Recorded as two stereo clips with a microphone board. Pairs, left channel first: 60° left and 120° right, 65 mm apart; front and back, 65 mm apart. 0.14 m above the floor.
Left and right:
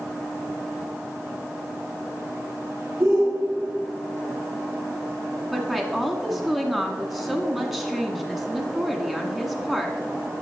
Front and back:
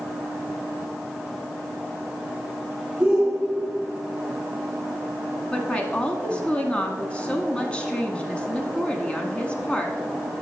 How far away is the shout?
About 1.5 m.